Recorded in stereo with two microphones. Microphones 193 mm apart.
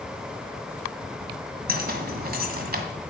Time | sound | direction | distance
1.7 | keys jangling | 55° right (ahead or behind) | 1.7 m